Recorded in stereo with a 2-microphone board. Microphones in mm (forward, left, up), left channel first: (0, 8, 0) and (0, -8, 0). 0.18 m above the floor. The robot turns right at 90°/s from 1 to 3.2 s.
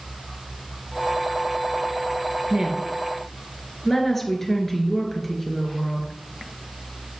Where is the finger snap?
No finger snap in this recording.